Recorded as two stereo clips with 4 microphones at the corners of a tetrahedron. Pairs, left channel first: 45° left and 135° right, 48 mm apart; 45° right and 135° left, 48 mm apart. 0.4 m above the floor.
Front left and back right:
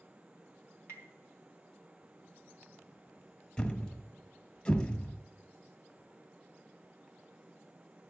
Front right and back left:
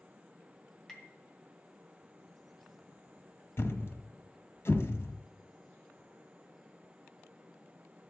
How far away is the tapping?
About 2.5 m.